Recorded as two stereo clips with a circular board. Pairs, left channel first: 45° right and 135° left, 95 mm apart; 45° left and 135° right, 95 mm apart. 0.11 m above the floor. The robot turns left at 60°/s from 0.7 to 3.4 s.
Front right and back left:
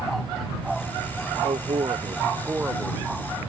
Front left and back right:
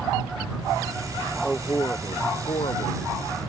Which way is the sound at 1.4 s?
135° left.